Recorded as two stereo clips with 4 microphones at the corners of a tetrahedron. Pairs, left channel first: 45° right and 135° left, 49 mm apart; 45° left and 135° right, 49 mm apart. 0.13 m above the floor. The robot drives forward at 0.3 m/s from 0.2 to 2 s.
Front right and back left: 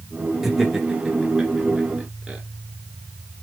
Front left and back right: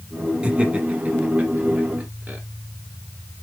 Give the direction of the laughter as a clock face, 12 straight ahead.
5 o'clock.